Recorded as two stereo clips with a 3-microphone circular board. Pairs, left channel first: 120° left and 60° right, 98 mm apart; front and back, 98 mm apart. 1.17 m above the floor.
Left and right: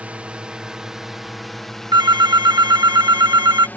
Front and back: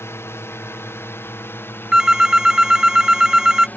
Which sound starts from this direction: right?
A phone ringing, at 1.9 s.